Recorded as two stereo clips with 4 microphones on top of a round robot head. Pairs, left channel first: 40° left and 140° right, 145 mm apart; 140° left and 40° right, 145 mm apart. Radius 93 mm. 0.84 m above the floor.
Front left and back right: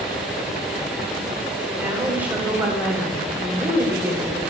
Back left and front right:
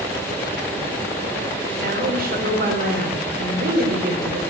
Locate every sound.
1.8 s a woman speaking: 60° right, 4 m